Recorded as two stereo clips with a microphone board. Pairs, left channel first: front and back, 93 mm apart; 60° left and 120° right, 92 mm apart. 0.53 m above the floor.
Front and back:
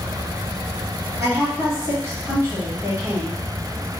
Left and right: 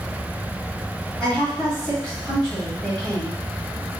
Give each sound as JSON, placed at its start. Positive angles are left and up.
{"t": 1.2, "sound": "a woman speaking", "azimuth_deg": 140, "distance_m": 1.4}